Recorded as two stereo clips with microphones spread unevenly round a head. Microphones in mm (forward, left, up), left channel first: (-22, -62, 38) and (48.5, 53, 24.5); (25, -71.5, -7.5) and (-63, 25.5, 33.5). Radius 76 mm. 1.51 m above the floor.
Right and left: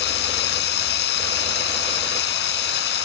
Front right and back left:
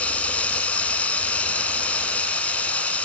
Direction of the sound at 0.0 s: 130° right.